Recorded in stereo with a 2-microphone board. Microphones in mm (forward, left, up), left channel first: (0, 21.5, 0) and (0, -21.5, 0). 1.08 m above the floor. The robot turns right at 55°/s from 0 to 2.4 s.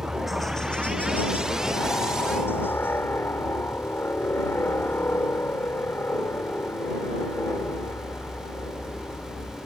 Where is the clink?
No clink in this recording.